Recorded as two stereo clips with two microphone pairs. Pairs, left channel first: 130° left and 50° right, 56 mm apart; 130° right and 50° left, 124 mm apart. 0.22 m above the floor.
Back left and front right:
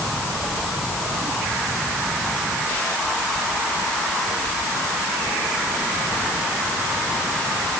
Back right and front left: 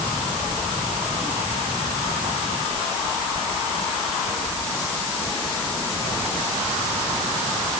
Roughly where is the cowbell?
No cowbell in this recording.